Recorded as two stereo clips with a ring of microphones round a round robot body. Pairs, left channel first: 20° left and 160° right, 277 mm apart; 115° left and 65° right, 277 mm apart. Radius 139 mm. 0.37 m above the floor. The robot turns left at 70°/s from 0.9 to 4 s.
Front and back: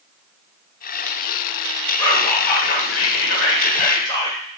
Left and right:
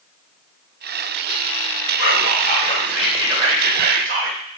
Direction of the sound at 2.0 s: 95° left.